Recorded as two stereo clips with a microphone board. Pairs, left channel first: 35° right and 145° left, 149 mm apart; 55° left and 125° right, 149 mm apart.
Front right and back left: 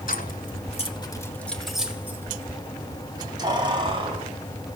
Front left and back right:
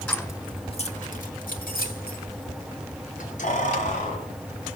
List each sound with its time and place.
0.1 s keys jangling: 20° right, 1.7 m; by 4.2 s 90° left, 4.5 m